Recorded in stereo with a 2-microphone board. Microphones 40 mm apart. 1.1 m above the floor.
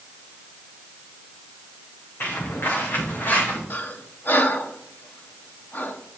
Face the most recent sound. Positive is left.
turn(degrees=60)  # may be behind; listen again after turning